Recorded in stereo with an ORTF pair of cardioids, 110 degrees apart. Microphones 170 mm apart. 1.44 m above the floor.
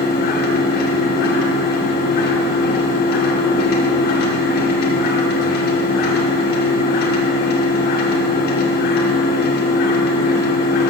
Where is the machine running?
70° left, 2 m.